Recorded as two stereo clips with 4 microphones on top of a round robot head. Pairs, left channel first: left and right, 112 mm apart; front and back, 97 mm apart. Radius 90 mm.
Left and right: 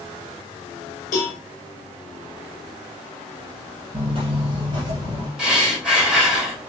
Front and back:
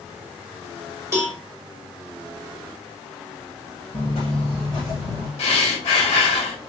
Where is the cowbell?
120° left, 1.6 m.